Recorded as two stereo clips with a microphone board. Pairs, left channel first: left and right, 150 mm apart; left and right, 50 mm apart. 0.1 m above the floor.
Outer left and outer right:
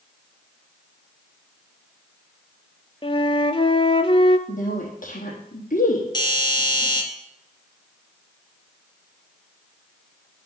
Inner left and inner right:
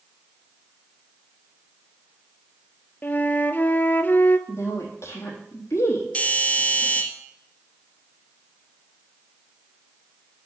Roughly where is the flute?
Left.